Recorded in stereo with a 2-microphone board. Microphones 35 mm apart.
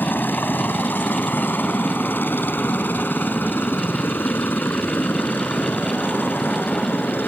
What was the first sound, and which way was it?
A helicopter, 75° left (ahead or behind).